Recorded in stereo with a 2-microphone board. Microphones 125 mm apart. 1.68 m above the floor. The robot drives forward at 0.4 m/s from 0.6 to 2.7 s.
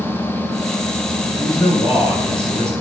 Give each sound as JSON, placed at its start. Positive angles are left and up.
{"t": 1.4, "sound": "a man speaking", "side_deg": 40, "distance_m": 7.0}